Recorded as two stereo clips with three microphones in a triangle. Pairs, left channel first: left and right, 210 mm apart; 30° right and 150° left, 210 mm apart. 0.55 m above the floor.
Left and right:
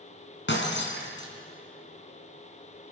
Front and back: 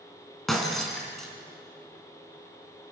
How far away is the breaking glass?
About 4 m.